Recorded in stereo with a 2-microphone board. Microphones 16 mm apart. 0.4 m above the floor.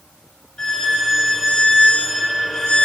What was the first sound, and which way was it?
A violin, 65° left (ahead or behind).